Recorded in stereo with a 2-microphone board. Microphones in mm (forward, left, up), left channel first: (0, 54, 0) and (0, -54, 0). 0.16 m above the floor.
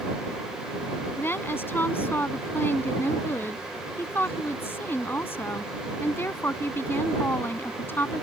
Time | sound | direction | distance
1.2 | a woman speaking | 20° left (ahead or behind) | ?